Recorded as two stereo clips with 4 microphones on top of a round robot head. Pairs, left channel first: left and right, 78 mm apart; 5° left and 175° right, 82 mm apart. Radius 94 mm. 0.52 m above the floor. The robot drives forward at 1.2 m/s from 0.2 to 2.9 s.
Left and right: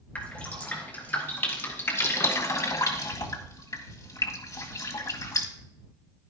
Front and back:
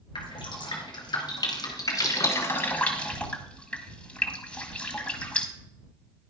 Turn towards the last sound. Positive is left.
turn(degrees=70)